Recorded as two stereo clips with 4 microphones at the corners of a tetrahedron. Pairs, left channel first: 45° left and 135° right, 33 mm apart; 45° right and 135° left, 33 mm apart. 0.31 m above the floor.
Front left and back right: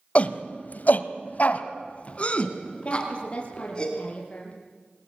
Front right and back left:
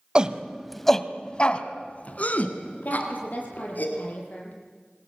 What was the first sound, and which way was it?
A shout, 80° left.